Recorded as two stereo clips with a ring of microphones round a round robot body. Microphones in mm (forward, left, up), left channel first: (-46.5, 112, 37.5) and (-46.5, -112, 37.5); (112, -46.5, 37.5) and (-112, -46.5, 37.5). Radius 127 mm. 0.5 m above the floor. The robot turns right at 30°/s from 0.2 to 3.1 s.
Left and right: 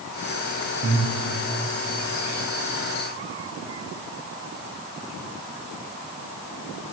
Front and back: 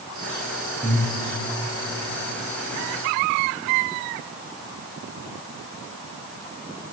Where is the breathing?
80° right, 3.5 m; by 1.1 s 75° right, 3.5 m.